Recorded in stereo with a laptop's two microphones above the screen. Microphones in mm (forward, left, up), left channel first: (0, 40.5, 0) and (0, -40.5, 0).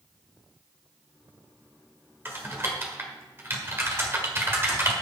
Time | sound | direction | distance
2.2 | typing on a keyboard | 30° right (ahead or behind) | 1.6 m